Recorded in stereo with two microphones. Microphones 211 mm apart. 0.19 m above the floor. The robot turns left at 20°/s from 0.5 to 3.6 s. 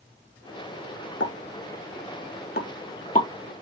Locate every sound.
1.2 s a pop: 60° left (ahead or behind), 0.7 m; by 3.3 s 35° left (ahead or behind), 0.7 m